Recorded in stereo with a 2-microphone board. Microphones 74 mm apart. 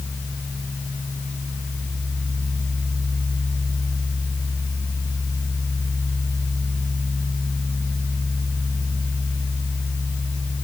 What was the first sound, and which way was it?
Only background noise.